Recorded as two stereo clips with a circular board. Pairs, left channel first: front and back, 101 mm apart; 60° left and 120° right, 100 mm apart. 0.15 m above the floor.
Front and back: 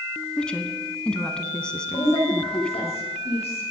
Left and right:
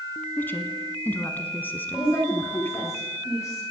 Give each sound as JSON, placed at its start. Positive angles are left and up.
{"t": 0.4, "sound": "a woman speaking", "azimuth_deg": 60, "distance_m": 1.0}
{"t": 1.9, "sound": "a woman speaking", "azimuth_deg": 0, "distance_m": 7.0}